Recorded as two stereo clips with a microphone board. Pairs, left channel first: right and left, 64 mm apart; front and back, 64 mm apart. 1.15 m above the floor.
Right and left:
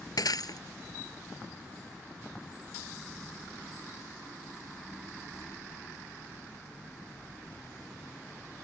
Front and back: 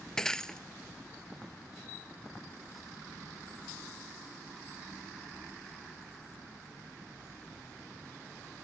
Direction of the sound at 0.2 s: 80° right.